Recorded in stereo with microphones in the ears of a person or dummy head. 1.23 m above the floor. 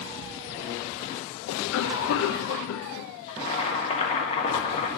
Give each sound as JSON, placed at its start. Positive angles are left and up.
{"t": 1.5, "sound": "a cough", "side_deg": 70, "distance_m": 0.6}
{"t": 3.3, "sound": "boiling", "side_deg": 30, "distance_m": 1.6}